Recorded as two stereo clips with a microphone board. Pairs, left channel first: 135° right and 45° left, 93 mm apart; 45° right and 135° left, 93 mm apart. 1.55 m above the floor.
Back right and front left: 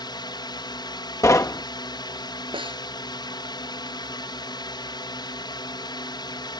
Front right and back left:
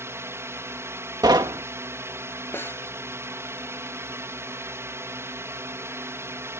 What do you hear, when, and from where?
0.0 s a drone: 165° right
1.2 s knocking: 170° left
2.5 s a snare drum: 20° left